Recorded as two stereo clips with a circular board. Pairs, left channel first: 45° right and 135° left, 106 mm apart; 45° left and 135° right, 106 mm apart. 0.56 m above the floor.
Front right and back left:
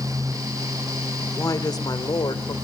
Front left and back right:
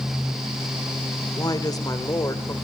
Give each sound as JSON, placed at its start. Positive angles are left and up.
{"t": 1.4, "sound": "a woman speaking", "azimuth_deg": 5, "distance_m": 1.9}